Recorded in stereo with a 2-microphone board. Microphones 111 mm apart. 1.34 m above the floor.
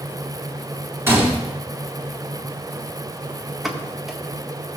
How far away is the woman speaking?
I don't hear a woman speaking.